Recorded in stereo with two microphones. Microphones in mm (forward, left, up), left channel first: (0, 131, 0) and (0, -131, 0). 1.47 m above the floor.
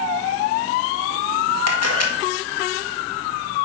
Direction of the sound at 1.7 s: 70° left (ahead or behind).